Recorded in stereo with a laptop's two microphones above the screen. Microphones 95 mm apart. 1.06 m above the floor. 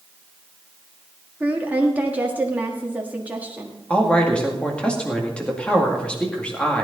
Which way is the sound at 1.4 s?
15° right (ahead or behind).